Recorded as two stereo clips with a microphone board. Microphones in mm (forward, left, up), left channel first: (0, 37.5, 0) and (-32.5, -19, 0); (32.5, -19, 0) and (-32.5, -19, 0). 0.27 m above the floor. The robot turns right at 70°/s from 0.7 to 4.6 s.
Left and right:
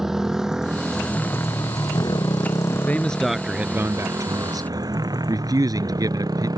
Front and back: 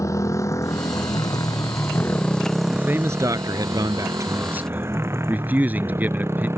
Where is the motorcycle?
35° right; by 6.6 s 130° right.